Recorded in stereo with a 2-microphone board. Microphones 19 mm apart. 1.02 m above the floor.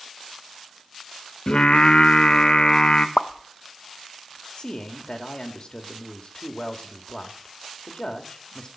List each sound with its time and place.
1.5 s singing: 60° left (ahead or behind), 0.7 m
3.2 s a pop: 70° left (ahead or behind), 0.6 m
4.6 s a man speaking: 40° left (ahead or behind), 1.7 m